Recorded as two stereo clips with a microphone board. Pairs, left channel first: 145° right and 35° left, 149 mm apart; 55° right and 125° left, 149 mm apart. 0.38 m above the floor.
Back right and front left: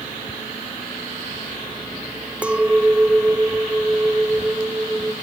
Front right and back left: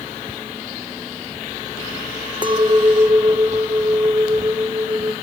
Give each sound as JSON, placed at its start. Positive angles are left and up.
{"t": 2.4, "sound": "a clink", "azimuth_deg": 110, "distance_m": 0.6}